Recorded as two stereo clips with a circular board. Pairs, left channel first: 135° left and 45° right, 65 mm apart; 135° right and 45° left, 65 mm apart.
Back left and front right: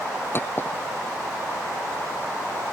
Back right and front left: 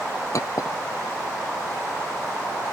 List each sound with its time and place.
0.3 s a clink: 170° right